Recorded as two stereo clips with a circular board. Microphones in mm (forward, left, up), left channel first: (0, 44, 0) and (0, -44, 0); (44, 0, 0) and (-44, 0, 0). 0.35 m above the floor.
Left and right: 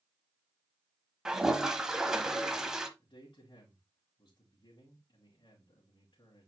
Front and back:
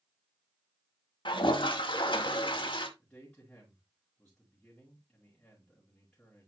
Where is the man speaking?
65° left, 3 m.